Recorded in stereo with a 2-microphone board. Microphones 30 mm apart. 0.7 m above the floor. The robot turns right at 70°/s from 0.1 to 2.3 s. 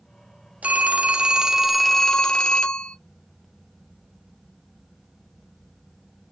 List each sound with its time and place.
0.6 s a phone ringing: 80° right, 0.7 m; by 3.0 s 35° left, 0.7 m